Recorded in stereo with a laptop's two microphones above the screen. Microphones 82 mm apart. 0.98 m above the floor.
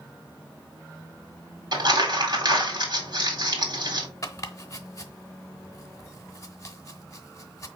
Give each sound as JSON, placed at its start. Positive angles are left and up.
{"t": 1.7, "sound": "crumpling", "side_deg": -55, "distance_m": 1.9}
{"t": 4.2, "sound": "chopping", "side_deg": 40, "distance_m": 0.9}